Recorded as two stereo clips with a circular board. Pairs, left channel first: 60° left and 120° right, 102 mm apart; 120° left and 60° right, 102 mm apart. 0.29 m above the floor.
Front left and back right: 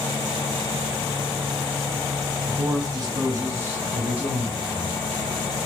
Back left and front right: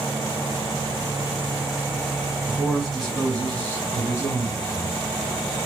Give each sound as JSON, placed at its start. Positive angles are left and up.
{"t": 2.5, "sound": "a man speaking", "azimuth_deg": -145, "distance_m": 1.9}